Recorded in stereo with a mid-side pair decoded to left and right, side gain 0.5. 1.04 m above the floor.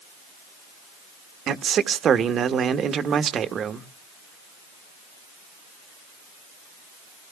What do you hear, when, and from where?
1.5 s a man speaking: 55° right, 1.2 m